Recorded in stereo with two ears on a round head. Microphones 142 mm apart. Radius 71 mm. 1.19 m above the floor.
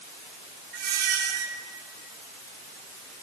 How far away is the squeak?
About 6.5 m.